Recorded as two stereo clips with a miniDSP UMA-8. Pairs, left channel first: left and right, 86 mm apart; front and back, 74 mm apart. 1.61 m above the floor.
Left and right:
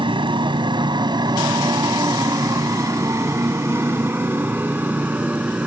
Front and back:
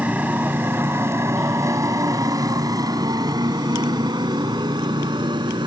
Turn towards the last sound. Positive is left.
turn(degrees=-165)